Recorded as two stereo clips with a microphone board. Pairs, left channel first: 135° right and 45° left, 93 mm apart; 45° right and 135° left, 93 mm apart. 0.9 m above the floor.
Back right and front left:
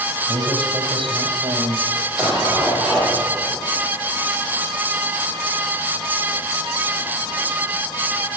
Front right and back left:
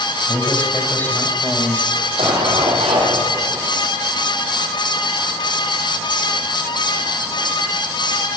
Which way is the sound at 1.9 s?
130° left.